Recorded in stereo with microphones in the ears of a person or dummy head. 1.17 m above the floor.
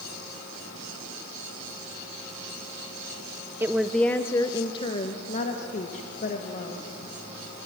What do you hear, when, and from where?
3.6 s a woman speaking: 15° right (ahead or behind), 0.6 m; by 6.8 s 50° left (ahead or behind), 2.0 m